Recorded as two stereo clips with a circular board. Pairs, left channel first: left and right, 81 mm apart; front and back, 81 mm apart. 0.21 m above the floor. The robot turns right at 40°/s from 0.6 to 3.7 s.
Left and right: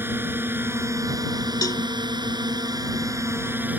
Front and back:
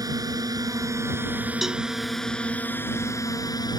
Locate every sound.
0.0 s a drone: 150° right; by 3.8 s 25° right
1.6 s a cowbell: 95° left; by 1.8 s 100° left